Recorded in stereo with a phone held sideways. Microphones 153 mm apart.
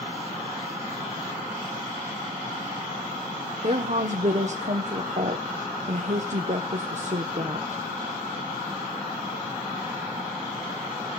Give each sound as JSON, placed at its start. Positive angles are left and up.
{"t": 3.6, "sound": "a woman speaking", "side_deg": -50, "distance_m": 0.8}